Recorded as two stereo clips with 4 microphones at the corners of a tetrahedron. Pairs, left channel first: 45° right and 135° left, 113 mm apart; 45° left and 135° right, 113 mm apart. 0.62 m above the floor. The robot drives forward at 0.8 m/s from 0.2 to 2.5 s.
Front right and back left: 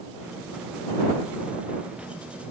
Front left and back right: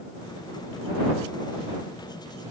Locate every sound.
Only background noise.